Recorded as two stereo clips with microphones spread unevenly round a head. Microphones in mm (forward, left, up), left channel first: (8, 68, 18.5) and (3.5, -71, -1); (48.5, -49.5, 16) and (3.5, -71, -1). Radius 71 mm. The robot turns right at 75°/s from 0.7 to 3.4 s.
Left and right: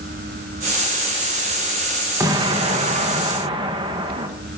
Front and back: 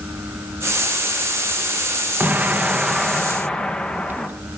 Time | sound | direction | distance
2.2 | an explosion | 145° right | 1.0 m